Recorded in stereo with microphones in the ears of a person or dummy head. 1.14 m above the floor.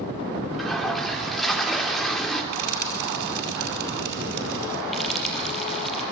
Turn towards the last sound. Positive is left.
turn(degrees=5)  # may be behind; listen again after turning